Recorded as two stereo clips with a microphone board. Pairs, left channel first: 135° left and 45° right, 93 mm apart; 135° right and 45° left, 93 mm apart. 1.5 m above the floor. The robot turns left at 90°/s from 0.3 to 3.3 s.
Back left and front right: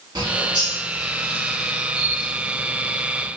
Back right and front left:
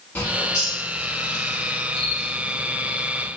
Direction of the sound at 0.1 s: 65° right.